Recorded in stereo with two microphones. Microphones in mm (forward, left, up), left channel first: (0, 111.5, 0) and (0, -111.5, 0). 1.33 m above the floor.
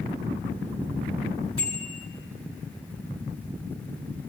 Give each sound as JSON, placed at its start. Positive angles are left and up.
{"t": 1.6, "sound": "a bicycle bell", "side_deg": -85, "distance_m": 7.5}